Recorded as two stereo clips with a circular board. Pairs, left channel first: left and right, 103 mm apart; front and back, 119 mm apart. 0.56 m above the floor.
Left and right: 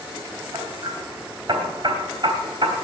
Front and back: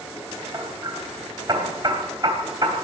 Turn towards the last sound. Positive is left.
turn(degrees=-130)